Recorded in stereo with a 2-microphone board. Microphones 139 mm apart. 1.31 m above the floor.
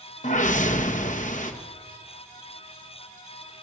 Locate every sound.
0.2 s a whoosh: 60° left (ahead or behind), 1.8 m